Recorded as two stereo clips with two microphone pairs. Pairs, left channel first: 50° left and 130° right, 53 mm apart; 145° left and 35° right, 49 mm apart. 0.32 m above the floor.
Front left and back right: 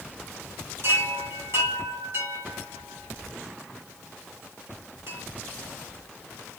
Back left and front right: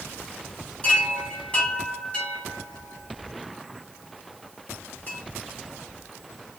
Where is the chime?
150° right, 3 m.